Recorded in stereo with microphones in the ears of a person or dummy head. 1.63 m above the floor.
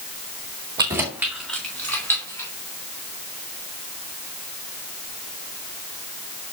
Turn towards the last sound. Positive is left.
turn(degrees=20)  # may be behind; listen again after turning